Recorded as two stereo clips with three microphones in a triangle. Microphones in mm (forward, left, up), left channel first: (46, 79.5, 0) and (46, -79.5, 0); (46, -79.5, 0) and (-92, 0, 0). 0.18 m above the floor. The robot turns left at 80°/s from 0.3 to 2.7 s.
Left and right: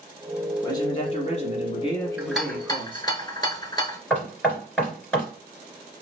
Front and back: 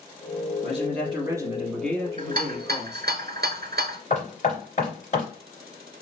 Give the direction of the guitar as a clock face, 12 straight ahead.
I don't hear a guitar.